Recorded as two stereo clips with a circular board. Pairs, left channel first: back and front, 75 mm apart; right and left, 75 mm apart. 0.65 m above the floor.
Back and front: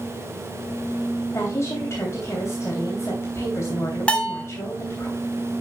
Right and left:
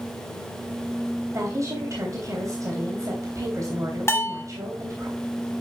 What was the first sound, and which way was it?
A woman speaking, 130° left.